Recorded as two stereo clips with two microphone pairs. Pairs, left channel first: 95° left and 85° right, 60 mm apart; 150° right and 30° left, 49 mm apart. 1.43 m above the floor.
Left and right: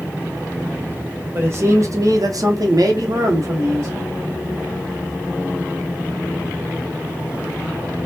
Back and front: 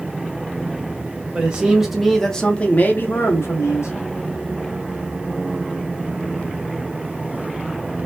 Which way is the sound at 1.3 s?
40° right.